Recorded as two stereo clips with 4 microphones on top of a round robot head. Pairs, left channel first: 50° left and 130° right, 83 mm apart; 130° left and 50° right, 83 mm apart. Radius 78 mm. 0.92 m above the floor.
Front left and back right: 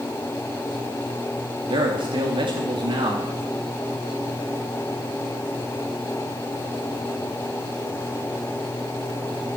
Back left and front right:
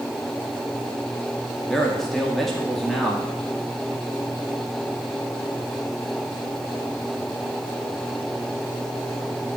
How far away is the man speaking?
About 2 m.